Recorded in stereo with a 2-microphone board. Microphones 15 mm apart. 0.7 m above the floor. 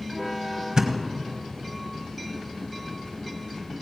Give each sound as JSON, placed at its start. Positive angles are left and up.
{"t": 0.8, "sound": "a thud", "side_deg": -55, "distance_m": 1.3}